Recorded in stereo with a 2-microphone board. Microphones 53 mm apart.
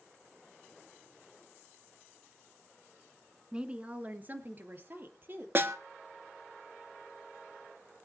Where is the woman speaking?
15° right (ahead or behind), 1.3 m; by 5.5 s 45° right (ahead or behind), 3.5 m.